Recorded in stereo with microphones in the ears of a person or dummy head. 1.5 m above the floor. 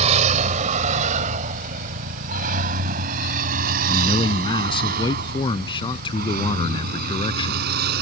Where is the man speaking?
30° left (ahead or behind).